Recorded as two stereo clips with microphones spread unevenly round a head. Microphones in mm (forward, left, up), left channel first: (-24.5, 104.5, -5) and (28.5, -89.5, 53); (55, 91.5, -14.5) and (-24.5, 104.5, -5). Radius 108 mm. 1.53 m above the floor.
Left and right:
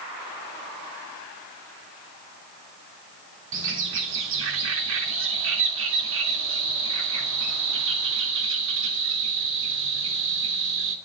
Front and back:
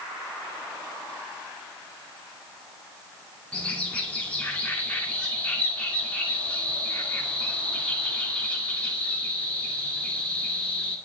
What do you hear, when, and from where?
3.5 s a bird: 95° right, 2.5 m